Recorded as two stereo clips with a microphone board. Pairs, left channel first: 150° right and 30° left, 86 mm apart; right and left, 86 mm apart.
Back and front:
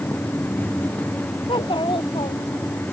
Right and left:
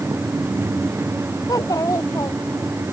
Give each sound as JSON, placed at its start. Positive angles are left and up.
{"t": 1.5, "sound": "a child speaking", "azimuth_deg": -135}